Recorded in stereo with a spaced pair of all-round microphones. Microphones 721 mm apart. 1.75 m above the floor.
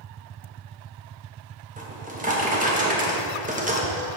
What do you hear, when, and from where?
1.8 s a drawer: 10° right (ahead or behind), 1.1 m